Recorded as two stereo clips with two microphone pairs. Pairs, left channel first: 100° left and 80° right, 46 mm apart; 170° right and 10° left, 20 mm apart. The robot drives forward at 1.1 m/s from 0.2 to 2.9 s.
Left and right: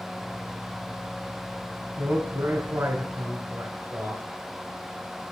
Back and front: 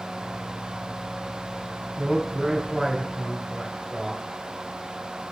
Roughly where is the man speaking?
Ahead right.